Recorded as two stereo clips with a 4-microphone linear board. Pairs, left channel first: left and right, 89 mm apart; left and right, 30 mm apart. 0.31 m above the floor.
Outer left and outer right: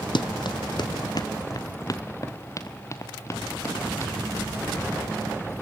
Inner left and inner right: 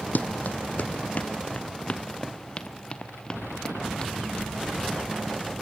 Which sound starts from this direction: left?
Running footsteps, at 0.1 s.